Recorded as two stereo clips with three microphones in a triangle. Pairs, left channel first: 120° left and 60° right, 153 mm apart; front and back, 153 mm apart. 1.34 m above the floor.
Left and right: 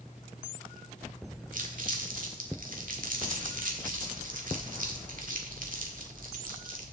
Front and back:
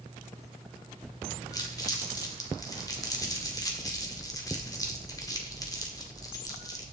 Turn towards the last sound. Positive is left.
turn(degrees=-65)